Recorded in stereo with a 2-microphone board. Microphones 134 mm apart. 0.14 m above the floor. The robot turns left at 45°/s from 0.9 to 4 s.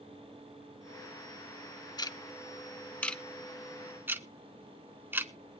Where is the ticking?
30° left (ahead or behind), 0.7 m; by 5.3 s 15° right (ahead or behind), 0.7 m.